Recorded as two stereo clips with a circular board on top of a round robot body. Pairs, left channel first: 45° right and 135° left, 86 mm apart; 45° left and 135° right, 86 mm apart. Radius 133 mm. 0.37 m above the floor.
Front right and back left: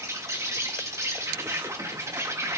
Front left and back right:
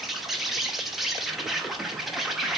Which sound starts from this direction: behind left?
An insect, at 0.0 s.